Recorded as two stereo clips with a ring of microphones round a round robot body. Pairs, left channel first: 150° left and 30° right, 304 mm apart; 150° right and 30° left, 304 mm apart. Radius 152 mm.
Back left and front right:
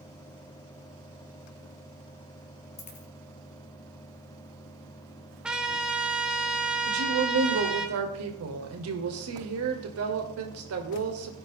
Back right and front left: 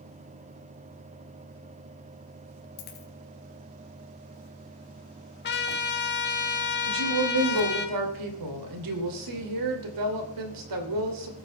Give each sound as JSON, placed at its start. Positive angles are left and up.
{"t": 2.8, "sound": "a dropped coin", "azimuth_deg": -140, "distance_m": 2.5}
{"t": 5.4, "sound": "a trumpet", "azimuth_deg": -115, "distance_m": 1.3}
{"t": 6.9, "sound": "a woman speaking", "azimuth_deg": 15, "distance_m": 2.5}